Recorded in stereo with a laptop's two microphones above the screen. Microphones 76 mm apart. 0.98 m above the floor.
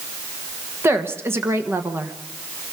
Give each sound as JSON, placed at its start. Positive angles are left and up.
{"t": 0.8, "sound": "a woman speaking", "side_deg": -30, "distance_m": 1.2}